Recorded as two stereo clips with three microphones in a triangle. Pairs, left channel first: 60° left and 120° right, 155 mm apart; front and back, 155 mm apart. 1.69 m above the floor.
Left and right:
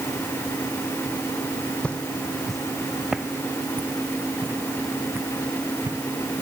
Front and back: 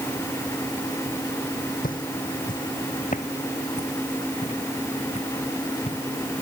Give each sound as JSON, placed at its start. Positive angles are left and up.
{"t": 1.8, "sound": "footsteps", "azimuth_deg": -20}